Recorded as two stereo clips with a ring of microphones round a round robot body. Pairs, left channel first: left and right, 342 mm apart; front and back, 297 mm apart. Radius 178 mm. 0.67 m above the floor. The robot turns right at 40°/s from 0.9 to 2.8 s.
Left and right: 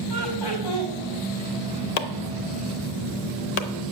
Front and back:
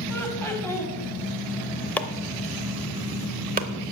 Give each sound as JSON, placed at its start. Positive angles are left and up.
{"t": 0.1, "sound": "laughter", "azimuth_deg": 80, "distance_m": 4.5}
{"t": 2.0, "sound": "chopping", "azimuth_deg": 85, "distance_m": 0.8}